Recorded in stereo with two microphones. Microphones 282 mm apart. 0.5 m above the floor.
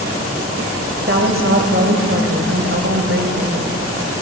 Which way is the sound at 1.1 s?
45° right (ahead or behind).